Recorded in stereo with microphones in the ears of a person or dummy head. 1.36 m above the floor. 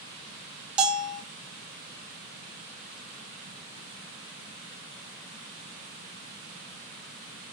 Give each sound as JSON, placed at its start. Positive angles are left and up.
{"t": 0.8, "sound": "a bell", "side_deg": -5, "distance_m": 0.6}